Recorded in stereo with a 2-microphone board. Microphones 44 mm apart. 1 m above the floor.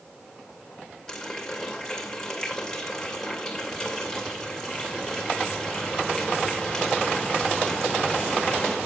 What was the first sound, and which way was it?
A running tap, 5° left (ahead or behind).